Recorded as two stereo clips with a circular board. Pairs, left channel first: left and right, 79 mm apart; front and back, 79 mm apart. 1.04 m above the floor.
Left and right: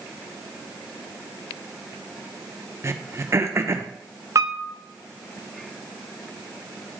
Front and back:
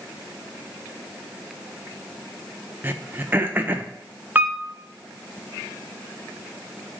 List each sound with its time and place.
2.8 s throat clearing: 125° right, 0.6 m
4.3 s a piano: 120° right, 0.6 m